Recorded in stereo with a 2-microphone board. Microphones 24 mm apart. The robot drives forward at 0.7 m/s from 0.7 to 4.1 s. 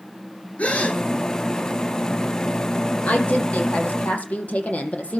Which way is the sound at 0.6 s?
70° left (ahead or behind).